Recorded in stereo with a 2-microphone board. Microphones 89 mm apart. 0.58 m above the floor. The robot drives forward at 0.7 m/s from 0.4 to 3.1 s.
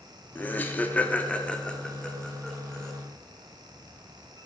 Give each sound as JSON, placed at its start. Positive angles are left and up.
{"t": 0.3, "sound": "laughter", "side_deg": 20, "distance_m": 0.6}